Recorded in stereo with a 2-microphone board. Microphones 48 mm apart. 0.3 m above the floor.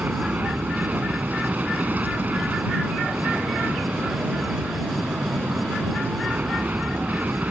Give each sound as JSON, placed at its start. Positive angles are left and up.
{"t": 0.0, "sound": "an aircraft", "side_deg": -35}